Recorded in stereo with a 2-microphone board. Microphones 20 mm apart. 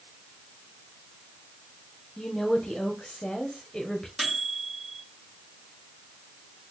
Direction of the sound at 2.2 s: 50° left (ahead or behind).